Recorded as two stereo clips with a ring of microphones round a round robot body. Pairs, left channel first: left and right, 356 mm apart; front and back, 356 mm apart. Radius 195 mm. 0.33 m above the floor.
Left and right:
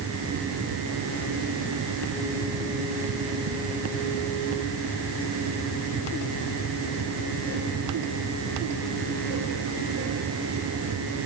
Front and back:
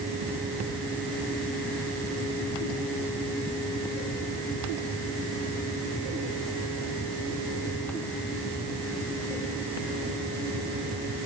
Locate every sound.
Only background noise.